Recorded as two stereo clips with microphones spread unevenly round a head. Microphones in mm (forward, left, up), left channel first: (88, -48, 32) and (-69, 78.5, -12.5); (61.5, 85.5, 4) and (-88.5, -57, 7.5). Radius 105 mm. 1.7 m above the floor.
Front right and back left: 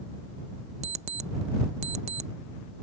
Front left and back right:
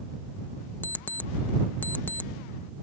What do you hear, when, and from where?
0.8 s an alarm clock: 110° left